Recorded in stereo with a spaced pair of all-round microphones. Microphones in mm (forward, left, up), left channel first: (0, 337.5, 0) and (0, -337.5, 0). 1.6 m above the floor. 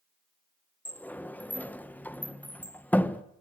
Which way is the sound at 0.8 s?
5° left (ahead or behind).